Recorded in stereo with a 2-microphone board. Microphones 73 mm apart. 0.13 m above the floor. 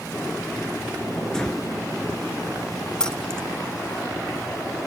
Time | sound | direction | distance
1.3 | breathing | 10° left (ahead or behind) | 1.3 m
3.0 | keys jangling | 10° left (ahead or behind) | 0.9 m